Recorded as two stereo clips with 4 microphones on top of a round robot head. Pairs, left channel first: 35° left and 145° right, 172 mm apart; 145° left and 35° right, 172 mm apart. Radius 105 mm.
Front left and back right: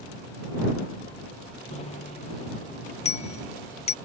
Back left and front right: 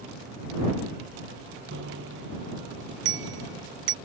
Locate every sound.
1.7 s a bicycle bell: 20° right